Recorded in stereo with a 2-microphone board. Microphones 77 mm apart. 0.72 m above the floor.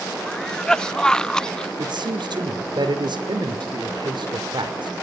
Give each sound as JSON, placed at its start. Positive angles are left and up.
{"t": 0.3, "sound": "a cough", "side_deg": 10, "distance_m": 0.5}
{"t": 1.8, "sound": "a man speaking", "side_deg": -70, "distance_m": 2.5}